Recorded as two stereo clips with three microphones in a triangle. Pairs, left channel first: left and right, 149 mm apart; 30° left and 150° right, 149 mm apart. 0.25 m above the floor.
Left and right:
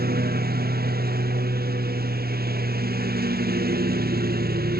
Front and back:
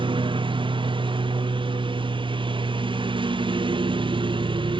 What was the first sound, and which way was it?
A lawn mower, 95° right.